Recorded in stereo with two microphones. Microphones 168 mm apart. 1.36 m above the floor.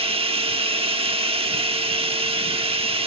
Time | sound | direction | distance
0.0 | running water | 35° right (ahead or behind) | 1.1 m